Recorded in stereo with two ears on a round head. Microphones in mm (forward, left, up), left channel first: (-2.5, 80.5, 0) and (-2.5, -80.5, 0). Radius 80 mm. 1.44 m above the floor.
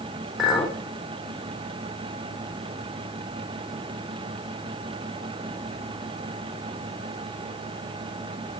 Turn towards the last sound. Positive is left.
turn(degrees=0)  # may be behind; listen again after turning